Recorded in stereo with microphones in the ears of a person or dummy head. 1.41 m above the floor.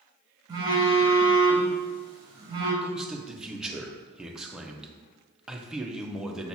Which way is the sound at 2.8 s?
Centre (ahead or behind).